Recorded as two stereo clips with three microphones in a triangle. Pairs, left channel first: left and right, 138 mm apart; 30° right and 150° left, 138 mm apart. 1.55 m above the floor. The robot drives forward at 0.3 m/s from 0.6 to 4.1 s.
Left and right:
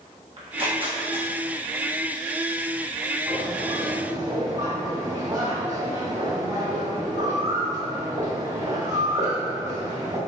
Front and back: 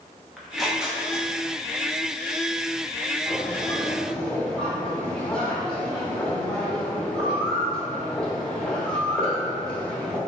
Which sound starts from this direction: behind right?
Tearing paper, at 0.4 s.